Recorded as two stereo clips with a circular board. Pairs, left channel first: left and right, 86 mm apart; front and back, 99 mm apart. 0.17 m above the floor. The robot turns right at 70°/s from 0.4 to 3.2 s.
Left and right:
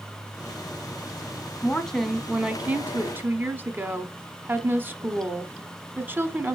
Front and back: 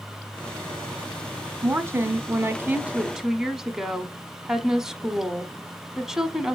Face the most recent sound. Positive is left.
turn(degrees=-100)